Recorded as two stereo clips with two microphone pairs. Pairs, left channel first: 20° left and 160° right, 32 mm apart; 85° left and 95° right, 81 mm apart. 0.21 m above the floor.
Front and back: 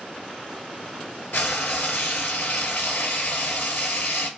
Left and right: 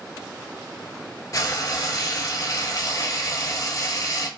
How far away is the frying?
About 0.9 m.